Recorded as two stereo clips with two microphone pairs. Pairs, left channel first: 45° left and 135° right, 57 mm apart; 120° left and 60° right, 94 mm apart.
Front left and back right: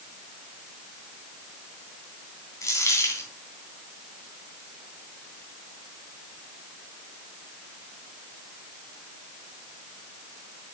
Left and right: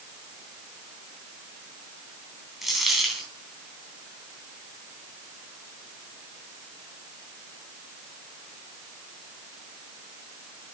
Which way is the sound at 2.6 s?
25° left.